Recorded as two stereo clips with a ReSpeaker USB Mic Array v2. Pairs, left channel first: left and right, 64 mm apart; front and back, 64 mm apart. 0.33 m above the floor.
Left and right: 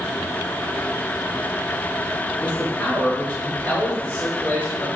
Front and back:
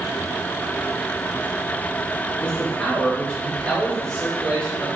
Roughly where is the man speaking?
Ahead left.